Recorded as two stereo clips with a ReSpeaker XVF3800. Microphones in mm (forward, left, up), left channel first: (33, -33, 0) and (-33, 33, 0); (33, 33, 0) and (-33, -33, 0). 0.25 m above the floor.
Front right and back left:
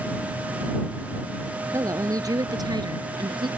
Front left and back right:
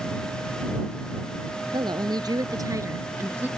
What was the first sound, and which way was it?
A woman speaking, 170° right.